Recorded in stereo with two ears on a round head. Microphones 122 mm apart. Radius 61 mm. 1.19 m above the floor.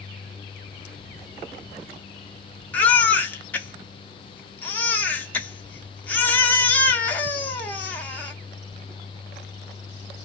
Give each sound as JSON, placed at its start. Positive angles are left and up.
{"t": 2.7, "sound": "a baby crying", "side_deg": 15, "distance_m": 0.7}